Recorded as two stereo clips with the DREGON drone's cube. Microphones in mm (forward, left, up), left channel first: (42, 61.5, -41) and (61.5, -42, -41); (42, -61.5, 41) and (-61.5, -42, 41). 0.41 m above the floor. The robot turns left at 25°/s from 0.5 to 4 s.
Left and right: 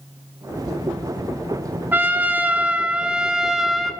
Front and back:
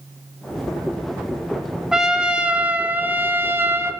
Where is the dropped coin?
I don't hear a dropped coin.